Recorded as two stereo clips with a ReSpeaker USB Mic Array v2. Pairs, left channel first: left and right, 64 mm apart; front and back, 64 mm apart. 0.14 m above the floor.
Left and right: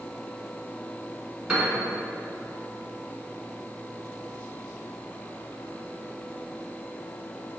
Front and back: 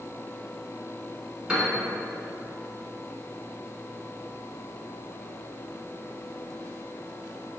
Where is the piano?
140° right, 0.9 m.